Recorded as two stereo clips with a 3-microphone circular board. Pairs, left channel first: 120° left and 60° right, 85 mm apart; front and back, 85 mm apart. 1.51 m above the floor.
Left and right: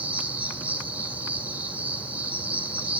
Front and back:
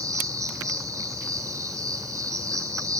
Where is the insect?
130° right, 7 m.